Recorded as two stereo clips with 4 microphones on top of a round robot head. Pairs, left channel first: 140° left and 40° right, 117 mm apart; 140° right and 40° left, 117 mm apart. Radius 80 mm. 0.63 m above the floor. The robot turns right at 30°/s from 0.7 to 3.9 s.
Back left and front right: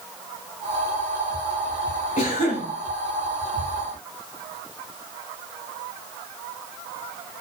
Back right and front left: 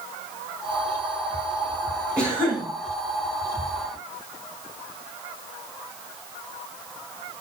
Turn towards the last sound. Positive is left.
turn(degrees=155)